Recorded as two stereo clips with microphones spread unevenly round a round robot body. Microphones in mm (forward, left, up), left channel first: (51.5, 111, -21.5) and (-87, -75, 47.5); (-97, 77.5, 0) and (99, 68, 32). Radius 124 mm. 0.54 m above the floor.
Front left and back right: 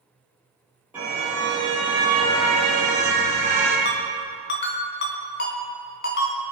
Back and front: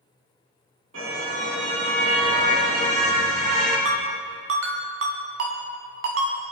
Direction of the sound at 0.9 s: 45° right.